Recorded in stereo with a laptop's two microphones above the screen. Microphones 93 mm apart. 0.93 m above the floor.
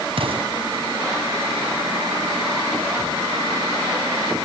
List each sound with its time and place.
0.2 s an explosion: 75° right (ahead or behind), 6.5 m